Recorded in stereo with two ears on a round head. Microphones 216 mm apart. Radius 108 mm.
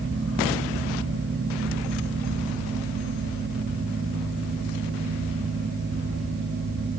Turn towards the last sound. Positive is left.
No sound to turn to.